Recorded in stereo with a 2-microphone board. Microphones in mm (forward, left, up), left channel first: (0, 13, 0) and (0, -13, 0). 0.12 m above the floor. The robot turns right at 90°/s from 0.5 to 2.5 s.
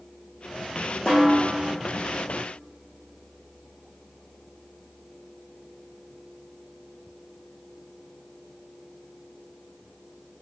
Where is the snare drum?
20° left, 1.8 m; by 1.5 s 60° left, 1.8 m.